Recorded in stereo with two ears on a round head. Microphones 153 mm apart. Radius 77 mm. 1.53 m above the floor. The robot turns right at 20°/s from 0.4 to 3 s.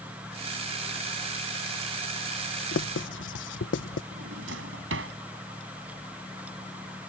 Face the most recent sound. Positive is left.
turn(degrees=-85)